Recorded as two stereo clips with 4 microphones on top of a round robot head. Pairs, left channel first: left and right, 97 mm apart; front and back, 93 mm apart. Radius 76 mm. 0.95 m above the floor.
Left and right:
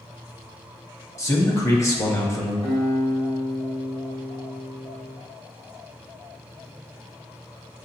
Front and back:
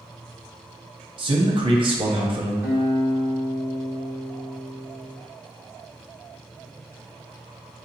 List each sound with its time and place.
1.2 s a man speaking: 150° left, 1.2 m
2.6 s a guitar: 110° left, 2 m